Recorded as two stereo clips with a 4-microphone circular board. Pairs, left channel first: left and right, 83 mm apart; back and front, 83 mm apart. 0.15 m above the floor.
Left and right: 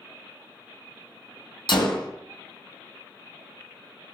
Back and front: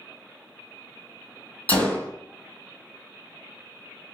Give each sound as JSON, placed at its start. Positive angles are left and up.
{"t": 1.7, "sound": "a gunshot", "azimuth_deg": 110, "distance_m": 0.8}